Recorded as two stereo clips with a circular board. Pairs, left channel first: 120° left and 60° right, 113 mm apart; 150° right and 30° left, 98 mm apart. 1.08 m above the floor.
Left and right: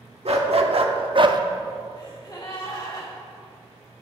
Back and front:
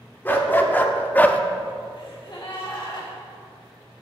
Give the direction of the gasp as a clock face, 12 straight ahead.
6 o'clock.